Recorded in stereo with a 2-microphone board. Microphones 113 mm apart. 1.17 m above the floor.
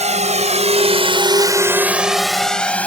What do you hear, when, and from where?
0.0 s a drone: 85° right; by 2.9 s 10° left (ahead or behind)